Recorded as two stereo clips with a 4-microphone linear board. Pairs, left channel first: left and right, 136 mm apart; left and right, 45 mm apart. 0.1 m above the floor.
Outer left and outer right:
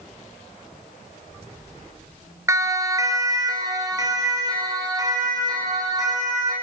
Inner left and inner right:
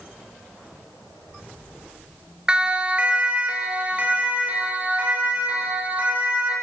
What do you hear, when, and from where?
2.5 s a siren: 20° right (ahead or behind), 2 m; by 6.5 s 30° right (ahead or behind), 6.5 m